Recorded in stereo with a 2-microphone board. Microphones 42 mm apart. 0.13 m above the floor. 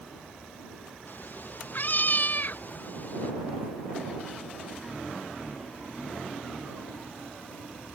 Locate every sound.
1.1 s a cat meowing: 50° left (ahead or behind); by 3.3 s 45° left (ahead or behind)